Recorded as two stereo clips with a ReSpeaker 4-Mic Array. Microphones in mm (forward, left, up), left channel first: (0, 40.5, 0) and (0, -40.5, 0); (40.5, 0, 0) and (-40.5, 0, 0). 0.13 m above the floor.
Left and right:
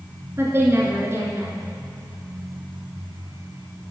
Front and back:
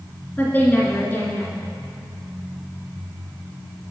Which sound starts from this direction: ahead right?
A woman speaking, at 0.4 s.